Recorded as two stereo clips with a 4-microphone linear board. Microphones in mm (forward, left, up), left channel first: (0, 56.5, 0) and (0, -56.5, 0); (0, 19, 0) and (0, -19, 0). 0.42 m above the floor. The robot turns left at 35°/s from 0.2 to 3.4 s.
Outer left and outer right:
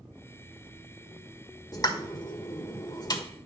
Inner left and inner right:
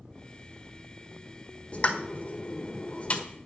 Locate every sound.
1.7 s a pop: 35° left (ahead or behind), 1.4 m; by 3.2 s 40° left (ahead or behind), 1.4 m